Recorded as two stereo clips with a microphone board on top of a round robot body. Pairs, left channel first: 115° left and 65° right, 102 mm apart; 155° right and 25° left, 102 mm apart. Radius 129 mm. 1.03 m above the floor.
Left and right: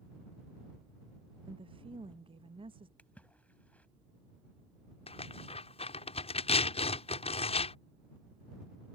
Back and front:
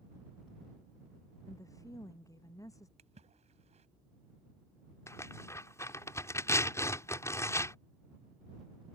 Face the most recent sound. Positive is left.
turn(degrees=135)